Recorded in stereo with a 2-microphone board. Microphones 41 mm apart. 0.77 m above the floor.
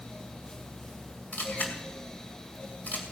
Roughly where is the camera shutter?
Left.